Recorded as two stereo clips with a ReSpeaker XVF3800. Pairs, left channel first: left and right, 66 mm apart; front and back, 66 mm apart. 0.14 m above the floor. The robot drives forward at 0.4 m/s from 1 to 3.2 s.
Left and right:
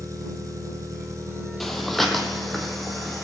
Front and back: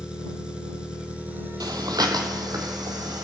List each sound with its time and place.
0.0 s an engine running: 105° right, 0.8 m; by 3.2 s 150° right, 1.3 m
1.6 s breathing: 175° left, 0.7 m; by 3.2 s straight behind, 1.3 m